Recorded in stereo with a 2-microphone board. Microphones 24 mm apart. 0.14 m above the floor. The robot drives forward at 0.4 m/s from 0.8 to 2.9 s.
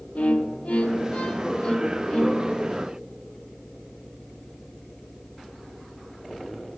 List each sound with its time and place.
0.1 s a violin: 65° left (ahead or behind), 0.7 m; by 2.8 s 30° left (ahead or behind), 1.3 m